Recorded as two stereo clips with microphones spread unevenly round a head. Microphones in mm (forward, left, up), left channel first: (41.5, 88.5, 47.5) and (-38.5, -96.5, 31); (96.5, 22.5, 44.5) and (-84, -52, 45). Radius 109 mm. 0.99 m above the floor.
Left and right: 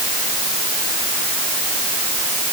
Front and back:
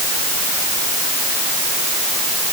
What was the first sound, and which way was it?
Only background noise.